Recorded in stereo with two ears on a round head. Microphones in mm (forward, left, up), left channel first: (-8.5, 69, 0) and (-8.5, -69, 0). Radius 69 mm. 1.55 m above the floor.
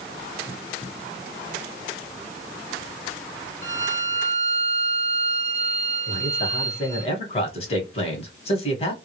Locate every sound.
3.6 s a violin: 15° left (ahead or behind), 1.1 m
6.1 s a man speaking: 40° left (ahead or behind), 1.2 m